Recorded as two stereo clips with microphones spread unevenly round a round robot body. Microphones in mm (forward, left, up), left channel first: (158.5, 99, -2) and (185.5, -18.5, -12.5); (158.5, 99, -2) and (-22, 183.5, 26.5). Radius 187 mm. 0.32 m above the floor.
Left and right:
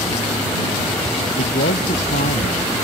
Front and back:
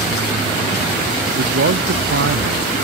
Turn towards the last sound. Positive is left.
turn(degrees=135)